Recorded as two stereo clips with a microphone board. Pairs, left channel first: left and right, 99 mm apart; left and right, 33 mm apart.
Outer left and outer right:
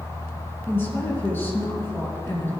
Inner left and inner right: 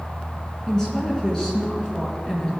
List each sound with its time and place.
0.7 s a woman speaking: 20° left (ahead or behind), 3 m